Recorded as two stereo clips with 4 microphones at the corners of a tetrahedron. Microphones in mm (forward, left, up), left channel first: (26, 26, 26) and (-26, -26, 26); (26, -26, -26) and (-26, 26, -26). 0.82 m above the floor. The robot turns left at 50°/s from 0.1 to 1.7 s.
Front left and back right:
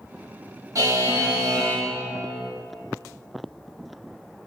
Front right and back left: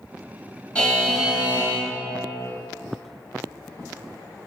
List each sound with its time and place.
0.8 s a buzzer: 115° right, 1.0 m; by 1.9 s 165° right, 1.0 m